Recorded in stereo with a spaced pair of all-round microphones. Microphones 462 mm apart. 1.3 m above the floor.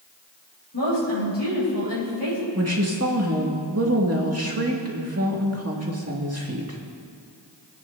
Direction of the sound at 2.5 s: 30° right (ahead or behind).